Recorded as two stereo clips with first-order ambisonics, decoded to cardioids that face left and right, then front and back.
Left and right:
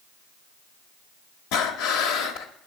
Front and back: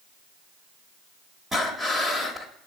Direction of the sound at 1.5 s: 100° left.